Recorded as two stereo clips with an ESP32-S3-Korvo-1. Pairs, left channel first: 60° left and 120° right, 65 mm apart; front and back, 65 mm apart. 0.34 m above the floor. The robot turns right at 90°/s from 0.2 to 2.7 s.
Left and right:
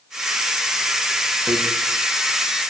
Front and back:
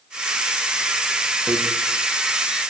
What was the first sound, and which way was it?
Hammering, 130° right.